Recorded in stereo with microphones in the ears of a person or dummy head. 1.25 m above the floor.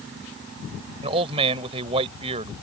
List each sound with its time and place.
1.0 s a man speaking: 30° right (ahead or behind)